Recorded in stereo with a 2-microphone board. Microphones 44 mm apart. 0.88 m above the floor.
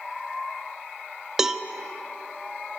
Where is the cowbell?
10° right (ahead or behind), 0.7 m.